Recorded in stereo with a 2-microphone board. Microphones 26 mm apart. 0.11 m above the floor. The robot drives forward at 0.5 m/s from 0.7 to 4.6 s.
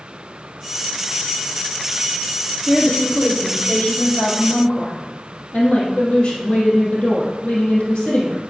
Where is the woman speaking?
70° left (ahead or behind), 3 m; by 8.5 s 65° left (ahead or behind), 3 m.